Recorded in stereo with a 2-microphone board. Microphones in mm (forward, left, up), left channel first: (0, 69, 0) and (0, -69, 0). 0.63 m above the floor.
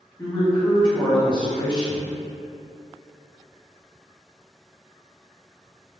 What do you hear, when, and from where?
0.2 s a man speaking: 35° left (ahead or behind), 1.7 m